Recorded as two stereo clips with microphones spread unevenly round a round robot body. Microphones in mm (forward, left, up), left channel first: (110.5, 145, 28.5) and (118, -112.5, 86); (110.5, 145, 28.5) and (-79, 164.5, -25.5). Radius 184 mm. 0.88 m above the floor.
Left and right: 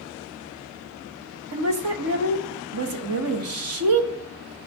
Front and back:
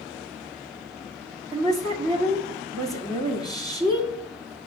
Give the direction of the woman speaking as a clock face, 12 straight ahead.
4 o'clock.